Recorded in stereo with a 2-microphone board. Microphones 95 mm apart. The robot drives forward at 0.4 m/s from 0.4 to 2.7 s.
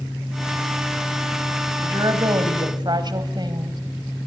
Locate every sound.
1.8 s a woman speaking: 45° right (ahead or behind), 2.5 m; by 3.8 s 50° right (ahead or behind), 2 m